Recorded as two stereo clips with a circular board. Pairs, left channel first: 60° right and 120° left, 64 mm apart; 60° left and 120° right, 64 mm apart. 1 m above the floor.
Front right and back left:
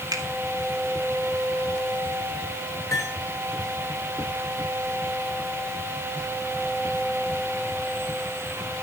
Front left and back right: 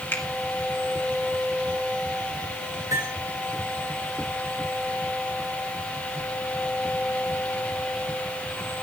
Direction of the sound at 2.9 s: 105° right.